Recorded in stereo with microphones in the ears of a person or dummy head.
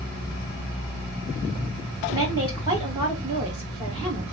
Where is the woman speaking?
20° right (ahead or behind), 1.1 m.